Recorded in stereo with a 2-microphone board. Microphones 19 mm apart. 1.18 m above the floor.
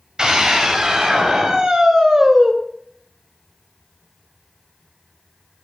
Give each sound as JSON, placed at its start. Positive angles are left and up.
{"t": 0.2, "sound": "a scream", "side_deg": -35, "distance_m": 7.0}